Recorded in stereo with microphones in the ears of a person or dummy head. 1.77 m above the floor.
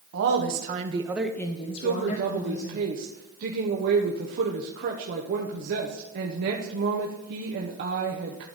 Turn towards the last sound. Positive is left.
turn(degrees=-55)  # may be behind; listen again after turning